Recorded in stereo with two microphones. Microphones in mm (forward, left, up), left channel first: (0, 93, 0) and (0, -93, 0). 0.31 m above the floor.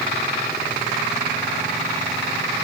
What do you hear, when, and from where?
Only background noise.